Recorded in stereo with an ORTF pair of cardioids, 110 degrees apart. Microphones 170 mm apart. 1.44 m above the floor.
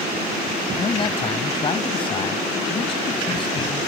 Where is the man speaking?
30° left.